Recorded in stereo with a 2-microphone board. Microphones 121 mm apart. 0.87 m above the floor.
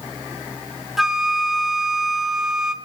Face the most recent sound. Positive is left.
turn(degrees=-5)  # may be behind; listen again after turning